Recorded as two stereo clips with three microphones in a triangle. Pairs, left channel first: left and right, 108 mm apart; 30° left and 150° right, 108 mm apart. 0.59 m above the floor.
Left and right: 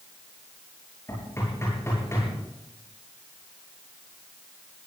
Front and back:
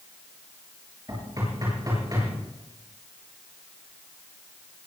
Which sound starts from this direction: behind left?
Knocking, at 1.1 s.